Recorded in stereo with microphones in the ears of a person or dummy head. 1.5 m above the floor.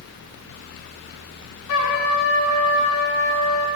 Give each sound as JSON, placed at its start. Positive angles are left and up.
{"t": 1.7, "sound": "a trumpet", "side_deg": 80, "distance_m": 1.1}